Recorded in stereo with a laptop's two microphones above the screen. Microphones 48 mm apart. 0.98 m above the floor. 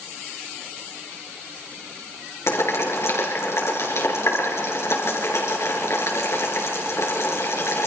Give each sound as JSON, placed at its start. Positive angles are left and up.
{"t": 2.5, "sound": "boiling", "side_deg": 70, "distance_m": 5.5}